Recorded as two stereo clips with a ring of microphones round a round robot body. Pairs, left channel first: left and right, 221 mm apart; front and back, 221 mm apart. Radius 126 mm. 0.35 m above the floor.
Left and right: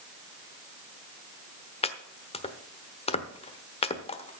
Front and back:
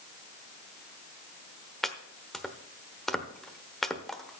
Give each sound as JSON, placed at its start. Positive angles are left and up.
{"t": 1.8, "sound": "chopping", "azimuth_deg": 85, "distance_m": 1.1}